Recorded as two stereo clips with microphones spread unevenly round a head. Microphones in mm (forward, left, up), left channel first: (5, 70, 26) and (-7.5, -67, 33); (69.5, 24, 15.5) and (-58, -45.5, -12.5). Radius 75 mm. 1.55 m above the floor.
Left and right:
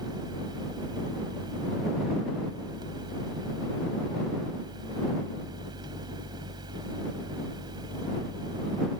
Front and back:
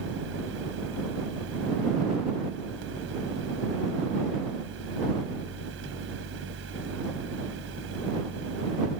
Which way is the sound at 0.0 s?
155° right.